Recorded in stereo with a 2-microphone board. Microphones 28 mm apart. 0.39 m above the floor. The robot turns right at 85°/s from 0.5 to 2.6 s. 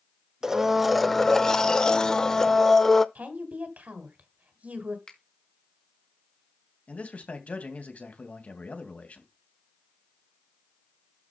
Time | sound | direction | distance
0.4 | a blender | 15° right (ahead or behind) | 0.6 m
3.1 | a woman speaking | 60° right (ahead or behind) | 2.5 m
5.1 | a finger snap | 30° left (ahead or behind) | 2.5 m
6.9 | a man speaking | 55° left (ahead or behind) | 2.5 m